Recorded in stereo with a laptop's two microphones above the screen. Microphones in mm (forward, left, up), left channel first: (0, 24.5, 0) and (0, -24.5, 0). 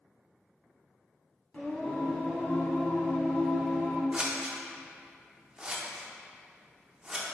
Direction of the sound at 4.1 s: 20° right (ahead or behind).